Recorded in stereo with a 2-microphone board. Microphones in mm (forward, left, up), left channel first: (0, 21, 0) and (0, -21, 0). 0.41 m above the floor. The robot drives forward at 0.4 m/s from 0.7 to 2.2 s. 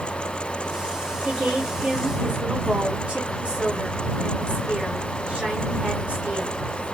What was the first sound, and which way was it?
A woman speaking, 30° right (ahead or behind).